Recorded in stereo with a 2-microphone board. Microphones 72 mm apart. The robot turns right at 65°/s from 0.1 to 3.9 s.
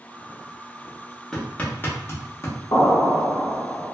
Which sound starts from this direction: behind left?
An explosion, at 2.7 s.